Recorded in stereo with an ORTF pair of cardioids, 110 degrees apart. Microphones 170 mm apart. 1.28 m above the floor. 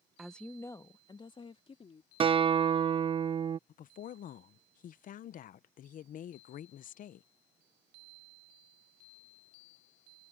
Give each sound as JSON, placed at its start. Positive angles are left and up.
{"t": 0.2, "sound": "a woman speaking", "azimuth_deg": -5}
{"t": 2.2, "sound": "a guitar", "azimuth_deg": -35}
{"t": 3.7, "sound": "a woman speaking", "azimuth_deg": 55}